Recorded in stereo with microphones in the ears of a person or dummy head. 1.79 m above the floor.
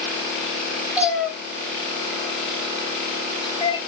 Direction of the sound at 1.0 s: 5° right (ahead or behind).